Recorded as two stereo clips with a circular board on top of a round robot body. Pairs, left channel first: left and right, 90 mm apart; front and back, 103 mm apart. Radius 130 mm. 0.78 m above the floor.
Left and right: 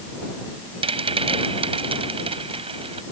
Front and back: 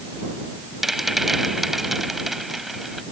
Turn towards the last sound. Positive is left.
turn(degrees=-90)